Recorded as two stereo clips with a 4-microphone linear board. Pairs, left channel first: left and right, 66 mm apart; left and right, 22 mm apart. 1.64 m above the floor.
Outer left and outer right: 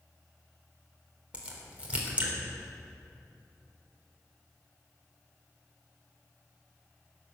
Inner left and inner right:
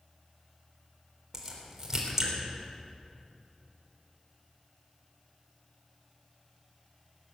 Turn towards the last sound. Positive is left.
turn(degrees=-20)  # may be behind; listen again after turning